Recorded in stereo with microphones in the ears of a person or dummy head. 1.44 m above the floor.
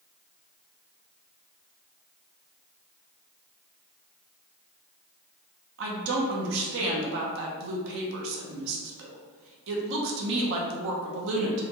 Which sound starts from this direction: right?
A woman speaking, at 5.8 s.